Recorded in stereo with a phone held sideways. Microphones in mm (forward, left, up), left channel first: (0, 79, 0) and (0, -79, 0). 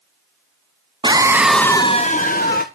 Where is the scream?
30° right (ahead or behind), 0.9 m; by 2.6 s 75° left (ahead or behind), 1.1 m.